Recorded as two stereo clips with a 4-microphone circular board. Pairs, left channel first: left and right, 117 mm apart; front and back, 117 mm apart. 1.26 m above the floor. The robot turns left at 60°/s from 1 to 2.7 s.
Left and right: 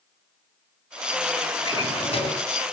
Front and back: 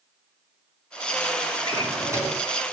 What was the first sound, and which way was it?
A drawer, 145° left.